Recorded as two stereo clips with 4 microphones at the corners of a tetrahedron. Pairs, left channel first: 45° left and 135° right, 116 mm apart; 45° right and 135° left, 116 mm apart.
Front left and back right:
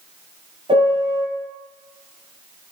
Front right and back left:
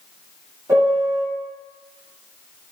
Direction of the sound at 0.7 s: 160° right.